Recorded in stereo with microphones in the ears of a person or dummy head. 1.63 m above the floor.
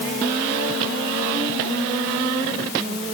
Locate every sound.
Only background noise.